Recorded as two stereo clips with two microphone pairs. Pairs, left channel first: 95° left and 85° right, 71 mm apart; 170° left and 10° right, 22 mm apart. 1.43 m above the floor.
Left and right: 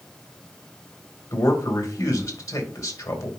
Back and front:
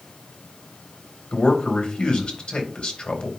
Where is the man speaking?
140° left, 2 m.